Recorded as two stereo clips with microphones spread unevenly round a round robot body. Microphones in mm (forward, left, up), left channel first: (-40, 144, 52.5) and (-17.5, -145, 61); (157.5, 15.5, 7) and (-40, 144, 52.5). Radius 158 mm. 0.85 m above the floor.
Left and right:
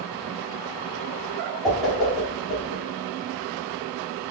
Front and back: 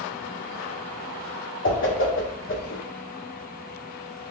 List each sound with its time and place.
1.6 s a whoosh: 5° left, 1.2 m